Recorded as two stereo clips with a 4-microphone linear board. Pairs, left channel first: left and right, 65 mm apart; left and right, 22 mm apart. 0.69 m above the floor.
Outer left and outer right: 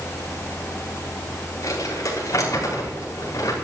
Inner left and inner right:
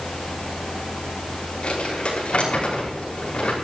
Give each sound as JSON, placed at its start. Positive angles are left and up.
{"t": 1.6, "sound": "crumpling", "side_deg": 60, "distance_m": 5.5}